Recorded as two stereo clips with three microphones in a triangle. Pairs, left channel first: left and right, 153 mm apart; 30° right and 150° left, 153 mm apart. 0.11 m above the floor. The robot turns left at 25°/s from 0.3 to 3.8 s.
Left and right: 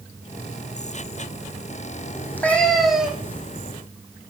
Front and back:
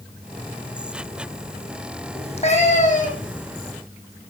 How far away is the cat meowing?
About 3 m.